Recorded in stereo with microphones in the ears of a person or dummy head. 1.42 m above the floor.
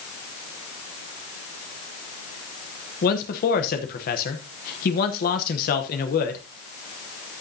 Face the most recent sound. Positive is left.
turn(degrees=50)  # may be behind; listen again after turning